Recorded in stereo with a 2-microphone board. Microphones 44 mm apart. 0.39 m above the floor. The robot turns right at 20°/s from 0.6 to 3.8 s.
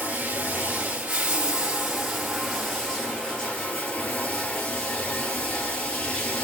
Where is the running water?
35° right, 2.5 m; by 6.5 s 30° left, 2.5 m.